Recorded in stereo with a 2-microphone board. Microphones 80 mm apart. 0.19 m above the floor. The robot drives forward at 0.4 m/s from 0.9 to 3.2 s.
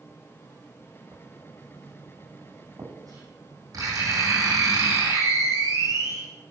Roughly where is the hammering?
No hammering in this recording.